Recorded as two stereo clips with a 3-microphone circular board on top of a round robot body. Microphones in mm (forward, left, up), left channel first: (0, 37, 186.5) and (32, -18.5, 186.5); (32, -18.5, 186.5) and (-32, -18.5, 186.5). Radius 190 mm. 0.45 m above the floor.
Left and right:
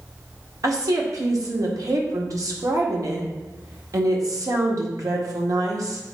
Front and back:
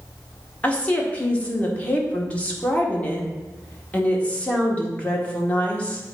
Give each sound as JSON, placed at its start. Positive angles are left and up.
{"t": 0.6, "sound": "a woman speaking", "azimuth_deg": -65, "distance_m": 1.9}